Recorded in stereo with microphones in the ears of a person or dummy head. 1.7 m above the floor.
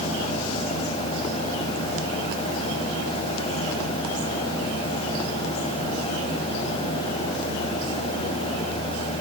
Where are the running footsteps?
No running footsteps in this recording.